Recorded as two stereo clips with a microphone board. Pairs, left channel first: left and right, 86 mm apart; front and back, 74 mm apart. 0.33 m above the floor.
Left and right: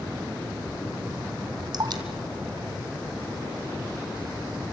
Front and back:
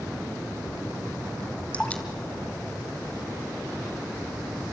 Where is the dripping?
70° right, 2 m.